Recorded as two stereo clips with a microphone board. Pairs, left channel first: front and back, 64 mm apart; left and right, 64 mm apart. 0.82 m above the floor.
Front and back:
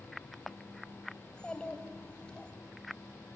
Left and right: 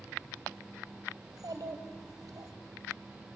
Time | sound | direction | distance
1.2 | a child speaking | 75° right | 2.5 m